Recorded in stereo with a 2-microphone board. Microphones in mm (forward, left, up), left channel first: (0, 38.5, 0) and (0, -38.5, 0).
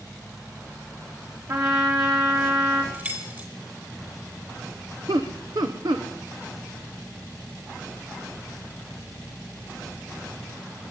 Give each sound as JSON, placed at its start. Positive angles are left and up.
{"t": 1.5, "sound": "a trumpet", "side_deg": -50, "distance_m": 3.0}
{"t": 2.9, "sound": "keys jangling", "side_deg": -25, "distance_m": 3.0}
{"t": 5.1, "sound": "laughter", "side_deg": -70, "distance_m": 1.0}